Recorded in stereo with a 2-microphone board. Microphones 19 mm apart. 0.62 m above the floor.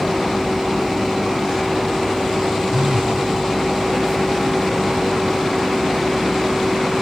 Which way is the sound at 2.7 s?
70° right (ahead or behind).